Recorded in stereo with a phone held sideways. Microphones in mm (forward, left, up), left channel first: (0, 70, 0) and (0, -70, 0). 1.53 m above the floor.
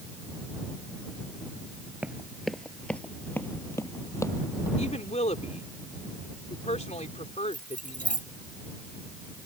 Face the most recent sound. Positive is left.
turn(degrees=65)  # may be behind; listen again after turning